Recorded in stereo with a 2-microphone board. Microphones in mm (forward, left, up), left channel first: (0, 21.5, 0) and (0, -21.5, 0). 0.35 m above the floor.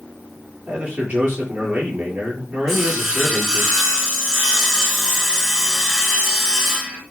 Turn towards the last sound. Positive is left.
turn(degrees=-15)  # may be behind; listen again after turning